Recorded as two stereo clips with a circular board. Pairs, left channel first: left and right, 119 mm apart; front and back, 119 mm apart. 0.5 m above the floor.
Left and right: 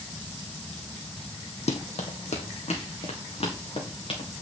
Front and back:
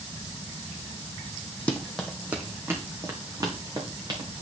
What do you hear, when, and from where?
1.7 s running footsteps: 80° left, 1.2 m; by 4.3 s 130° left, 3 m